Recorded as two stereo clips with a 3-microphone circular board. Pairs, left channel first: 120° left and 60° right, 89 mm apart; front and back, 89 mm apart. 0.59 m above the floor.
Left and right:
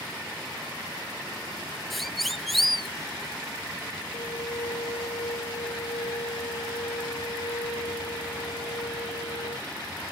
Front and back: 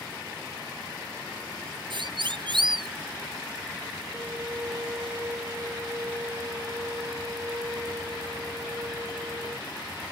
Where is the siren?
150° right.